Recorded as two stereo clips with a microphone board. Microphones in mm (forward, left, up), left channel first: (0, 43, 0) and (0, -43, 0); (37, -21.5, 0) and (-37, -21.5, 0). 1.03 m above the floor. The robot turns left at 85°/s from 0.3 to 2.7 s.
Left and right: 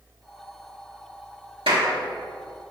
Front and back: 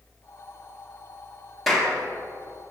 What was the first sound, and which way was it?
A clap, 90° right.